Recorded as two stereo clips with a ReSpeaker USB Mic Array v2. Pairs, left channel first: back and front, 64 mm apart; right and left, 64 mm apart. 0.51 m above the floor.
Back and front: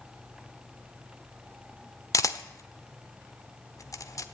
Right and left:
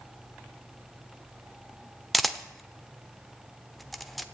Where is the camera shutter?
Straight behind, 0.9 m.